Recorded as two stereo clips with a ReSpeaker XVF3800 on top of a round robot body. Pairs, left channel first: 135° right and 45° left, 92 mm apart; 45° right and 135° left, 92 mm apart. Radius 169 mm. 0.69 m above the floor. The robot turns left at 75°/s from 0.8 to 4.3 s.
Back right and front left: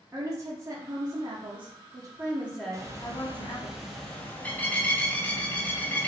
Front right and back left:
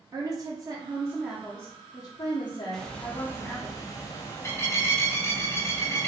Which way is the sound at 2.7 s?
40° left.